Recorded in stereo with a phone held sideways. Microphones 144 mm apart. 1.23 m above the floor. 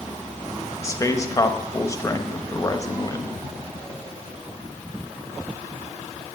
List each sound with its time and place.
0.8 s a man speaking: 25° left (ahead or behind), 1.2 m